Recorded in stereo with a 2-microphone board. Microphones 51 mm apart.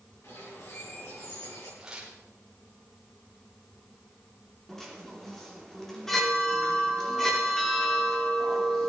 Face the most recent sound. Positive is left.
turn(degrees=5)  # may be behind; listen again after turning